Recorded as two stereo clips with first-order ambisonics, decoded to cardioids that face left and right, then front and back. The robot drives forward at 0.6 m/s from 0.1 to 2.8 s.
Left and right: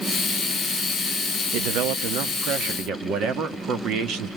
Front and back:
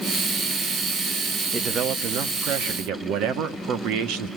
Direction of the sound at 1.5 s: 105° right.